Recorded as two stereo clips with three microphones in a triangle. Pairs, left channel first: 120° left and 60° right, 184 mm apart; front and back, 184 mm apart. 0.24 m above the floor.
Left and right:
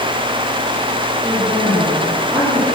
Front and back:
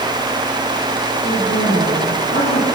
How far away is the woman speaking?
About 7 m.